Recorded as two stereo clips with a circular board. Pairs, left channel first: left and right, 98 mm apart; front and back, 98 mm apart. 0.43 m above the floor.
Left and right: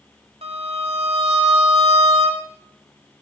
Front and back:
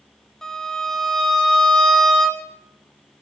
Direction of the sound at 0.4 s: 85° right.